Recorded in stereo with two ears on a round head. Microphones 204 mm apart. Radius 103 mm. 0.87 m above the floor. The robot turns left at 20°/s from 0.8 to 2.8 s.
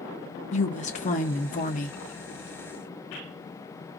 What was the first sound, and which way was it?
A woman speaking, 30° left (ahead or behind).